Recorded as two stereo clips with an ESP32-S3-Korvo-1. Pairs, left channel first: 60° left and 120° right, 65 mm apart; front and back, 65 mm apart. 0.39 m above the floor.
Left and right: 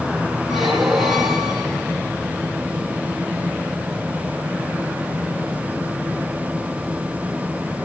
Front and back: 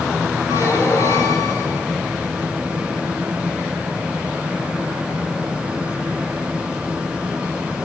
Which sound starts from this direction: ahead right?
A squeak, at 0.5 s.